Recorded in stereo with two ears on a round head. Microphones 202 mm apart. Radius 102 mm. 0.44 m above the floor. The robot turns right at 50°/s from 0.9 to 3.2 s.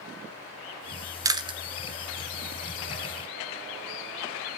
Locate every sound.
1.2 s chewing: 15° right (ahead or behind), 1.1 m; by 1.6 s 25° right (ahead or behind), 1.1 m